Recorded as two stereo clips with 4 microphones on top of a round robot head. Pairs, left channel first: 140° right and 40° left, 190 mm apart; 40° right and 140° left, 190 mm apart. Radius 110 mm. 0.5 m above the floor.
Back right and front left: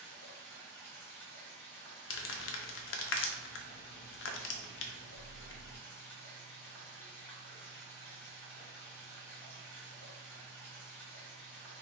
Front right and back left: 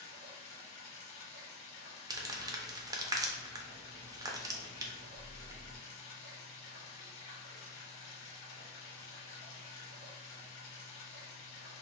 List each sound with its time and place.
0.0 s running water: 60° right, 1.4 m
2.1 s crumpling: 145° right, 0.5 m